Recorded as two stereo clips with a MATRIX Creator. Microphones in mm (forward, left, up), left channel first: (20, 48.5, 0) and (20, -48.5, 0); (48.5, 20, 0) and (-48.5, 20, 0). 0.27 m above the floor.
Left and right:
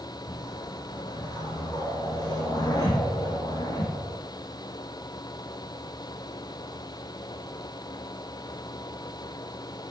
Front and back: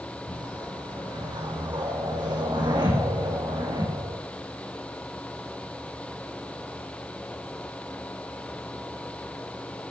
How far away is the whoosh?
About 4.5 m.